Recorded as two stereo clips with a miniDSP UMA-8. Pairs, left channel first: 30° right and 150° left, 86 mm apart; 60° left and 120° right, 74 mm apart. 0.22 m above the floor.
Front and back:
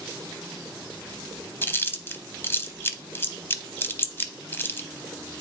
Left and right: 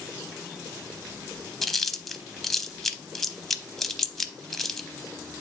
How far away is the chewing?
About 0.7 m.